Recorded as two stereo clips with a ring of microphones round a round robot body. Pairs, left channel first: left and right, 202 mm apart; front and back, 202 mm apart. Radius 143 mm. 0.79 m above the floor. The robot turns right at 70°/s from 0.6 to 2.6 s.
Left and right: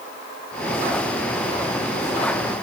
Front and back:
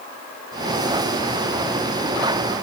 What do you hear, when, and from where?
Only background noise.